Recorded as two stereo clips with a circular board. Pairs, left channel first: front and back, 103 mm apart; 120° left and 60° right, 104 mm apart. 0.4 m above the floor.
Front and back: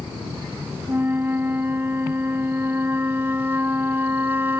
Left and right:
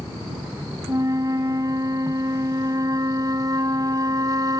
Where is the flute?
110° right.